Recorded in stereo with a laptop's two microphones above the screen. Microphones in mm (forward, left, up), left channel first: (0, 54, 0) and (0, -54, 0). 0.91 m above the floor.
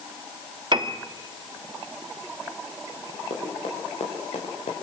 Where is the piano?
45° right (ahead or behind), 1.4 m.